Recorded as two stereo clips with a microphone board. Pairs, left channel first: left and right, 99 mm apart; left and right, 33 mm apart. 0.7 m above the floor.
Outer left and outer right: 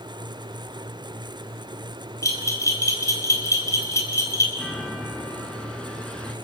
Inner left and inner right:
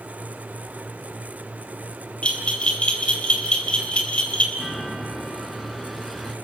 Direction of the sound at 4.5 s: 10° left (ahead or behind).